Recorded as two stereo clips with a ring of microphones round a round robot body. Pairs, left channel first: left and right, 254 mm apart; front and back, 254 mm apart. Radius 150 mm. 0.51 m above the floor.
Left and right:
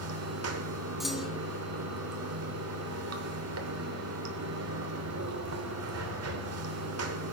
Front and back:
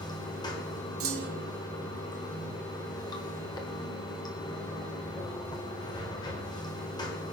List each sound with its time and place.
0.0 s running water: 75° right, 1.2 m
1.0 s a clunk: straight behind, 1.2 m